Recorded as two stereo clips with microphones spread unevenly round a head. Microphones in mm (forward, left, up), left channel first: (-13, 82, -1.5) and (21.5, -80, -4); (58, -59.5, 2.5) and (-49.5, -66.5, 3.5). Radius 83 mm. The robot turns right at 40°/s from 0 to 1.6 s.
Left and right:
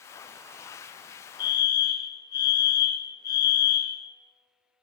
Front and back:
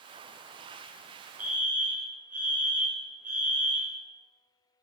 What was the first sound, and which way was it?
A fire alarm, 125° left.